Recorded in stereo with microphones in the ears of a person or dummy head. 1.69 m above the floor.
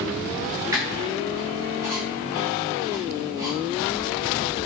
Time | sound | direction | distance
0.7 | a squeak | 10° right (ahead or behind) | 1.4 m